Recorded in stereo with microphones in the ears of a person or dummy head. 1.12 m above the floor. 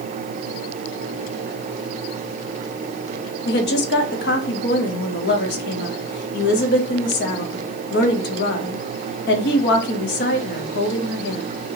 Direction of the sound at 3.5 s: 50° left (ahead or behind).